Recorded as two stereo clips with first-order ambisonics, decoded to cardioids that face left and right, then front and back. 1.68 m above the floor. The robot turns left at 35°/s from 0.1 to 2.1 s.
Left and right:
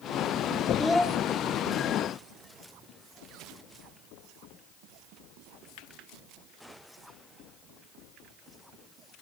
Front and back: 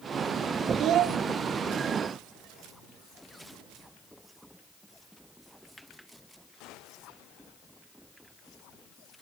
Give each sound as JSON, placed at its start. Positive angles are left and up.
{"t": 0.8, "sound": "a child speaking", "azimuth_deg": 175, "distance_m": 0.5}